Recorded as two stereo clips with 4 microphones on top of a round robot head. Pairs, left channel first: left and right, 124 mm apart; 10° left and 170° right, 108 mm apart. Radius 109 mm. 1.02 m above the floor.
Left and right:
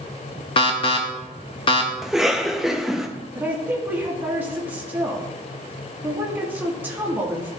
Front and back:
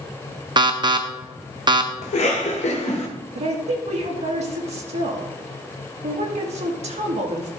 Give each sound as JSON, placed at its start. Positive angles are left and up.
{"t": 0.6, "sound": "an alarm", "azimuth_deg": 140, "distance_m": 0.8}
{"t": 2.0, "sound": "a cough", "azimuth_deg": -5, "distance_m": 1.0}
{"t": 3.4, "sound": "a woman speaking", "azimuth_deg": -165, "distance_m": 1.9}